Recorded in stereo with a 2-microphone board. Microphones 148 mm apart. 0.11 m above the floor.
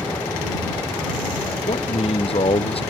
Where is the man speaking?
40° left (ahead or behind).